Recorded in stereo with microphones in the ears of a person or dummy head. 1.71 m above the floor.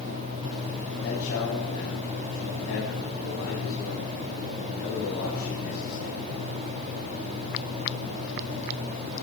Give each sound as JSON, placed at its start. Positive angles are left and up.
{"t": 1.0, "sound": "a man speaking", "side_deg": 65, "distance_m": 9.0}